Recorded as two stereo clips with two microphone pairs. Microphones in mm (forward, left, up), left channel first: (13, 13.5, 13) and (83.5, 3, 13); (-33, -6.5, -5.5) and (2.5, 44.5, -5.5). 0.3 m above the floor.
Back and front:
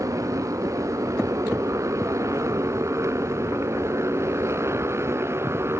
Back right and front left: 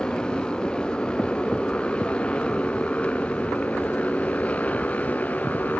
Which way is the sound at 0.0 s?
50° right.